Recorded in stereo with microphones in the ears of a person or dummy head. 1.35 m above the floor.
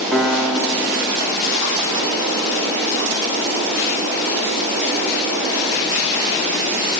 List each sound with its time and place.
0.1 s a piano: centre (ahead or behind), 0.8 m